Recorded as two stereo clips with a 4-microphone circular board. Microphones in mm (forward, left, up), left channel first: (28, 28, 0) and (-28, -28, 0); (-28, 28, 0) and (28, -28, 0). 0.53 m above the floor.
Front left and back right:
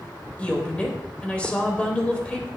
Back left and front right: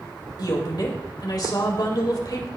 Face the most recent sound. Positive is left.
turn(degrees=120)